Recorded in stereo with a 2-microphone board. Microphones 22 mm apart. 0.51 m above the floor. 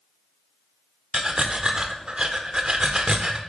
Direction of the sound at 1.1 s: 40° right (ahead or behind).